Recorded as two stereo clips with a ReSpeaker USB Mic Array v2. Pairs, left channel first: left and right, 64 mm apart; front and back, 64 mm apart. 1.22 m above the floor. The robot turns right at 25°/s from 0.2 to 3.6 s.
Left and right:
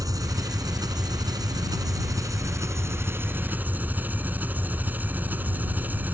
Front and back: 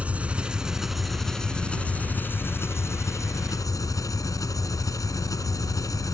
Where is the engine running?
115° right; by 6.1 s 30° right.